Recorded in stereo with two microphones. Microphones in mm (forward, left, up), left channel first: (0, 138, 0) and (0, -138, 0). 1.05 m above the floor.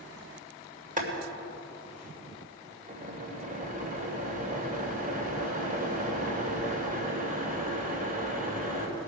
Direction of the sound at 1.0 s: 30° right (ahead or behind).